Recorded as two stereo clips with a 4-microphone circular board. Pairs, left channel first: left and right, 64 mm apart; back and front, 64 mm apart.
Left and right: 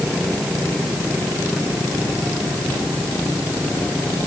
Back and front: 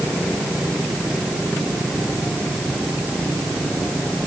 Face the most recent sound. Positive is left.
No sound to turn to.